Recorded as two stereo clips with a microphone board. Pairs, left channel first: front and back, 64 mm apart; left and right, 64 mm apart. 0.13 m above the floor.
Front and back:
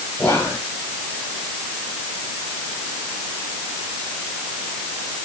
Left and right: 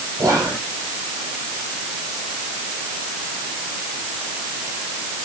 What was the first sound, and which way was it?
Whispering, 75° right.